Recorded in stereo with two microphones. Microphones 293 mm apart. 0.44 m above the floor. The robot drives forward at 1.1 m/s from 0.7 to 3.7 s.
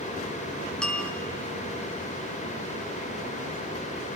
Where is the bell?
5° left (ahead or behind), 1.2 m.